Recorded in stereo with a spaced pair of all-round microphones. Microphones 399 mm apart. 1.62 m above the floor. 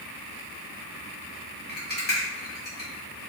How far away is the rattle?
About 1.1 m.